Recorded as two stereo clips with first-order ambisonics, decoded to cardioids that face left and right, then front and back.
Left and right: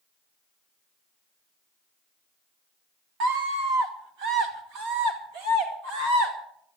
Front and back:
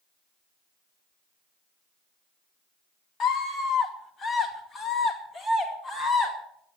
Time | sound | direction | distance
3.2 | a scream | 55° right | 2 m